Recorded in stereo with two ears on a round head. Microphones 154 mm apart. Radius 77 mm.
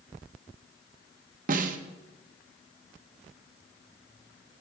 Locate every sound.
1.5 s a snare drum: 50° right (ahead or behind), 1.1 m